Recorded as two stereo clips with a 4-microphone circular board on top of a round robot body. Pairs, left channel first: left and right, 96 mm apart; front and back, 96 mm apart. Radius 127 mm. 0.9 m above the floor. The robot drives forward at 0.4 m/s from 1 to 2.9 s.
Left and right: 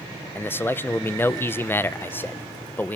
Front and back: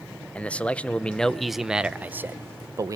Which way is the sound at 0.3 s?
60° left.